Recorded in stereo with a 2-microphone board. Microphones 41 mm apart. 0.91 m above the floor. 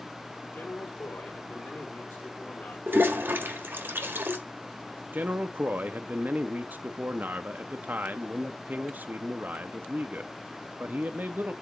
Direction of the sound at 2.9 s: 75° right (ahead or behind).